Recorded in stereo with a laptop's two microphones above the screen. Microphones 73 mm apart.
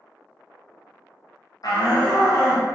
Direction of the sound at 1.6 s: 55° left (ahead or behind).